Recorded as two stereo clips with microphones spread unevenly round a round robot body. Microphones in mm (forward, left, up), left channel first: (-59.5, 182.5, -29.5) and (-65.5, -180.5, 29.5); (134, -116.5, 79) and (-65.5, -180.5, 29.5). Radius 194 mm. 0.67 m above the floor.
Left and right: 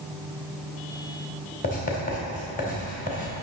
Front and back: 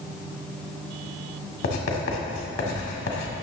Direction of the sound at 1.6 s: 25° left.